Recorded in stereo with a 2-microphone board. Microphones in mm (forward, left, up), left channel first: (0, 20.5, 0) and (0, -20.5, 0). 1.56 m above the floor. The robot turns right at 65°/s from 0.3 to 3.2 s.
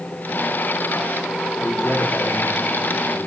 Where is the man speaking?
45° left, 4.5 m; by 3.3 s 150° left, 4.5 m.